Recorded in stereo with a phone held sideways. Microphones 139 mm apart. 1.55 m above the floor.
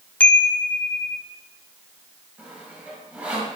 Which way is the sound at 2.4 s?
10° right (ahead or behind).